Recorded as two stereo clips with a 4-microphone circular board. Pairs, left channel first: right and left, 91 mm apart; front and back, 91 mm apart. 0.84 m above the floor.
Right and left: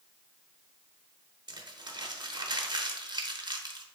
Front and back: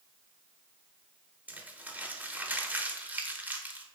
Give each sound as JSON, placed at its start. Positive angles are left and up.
{"t": 1.5, "sound": "crumpling", "azimuth_deg": 110, "distance_m": 0.6}